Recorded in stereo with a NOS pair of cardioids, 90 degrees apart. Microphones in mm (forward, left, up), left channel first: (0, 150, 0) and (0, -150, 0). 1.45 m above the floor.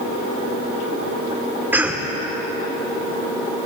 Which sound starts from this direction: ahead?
A cough, at 1.7 s.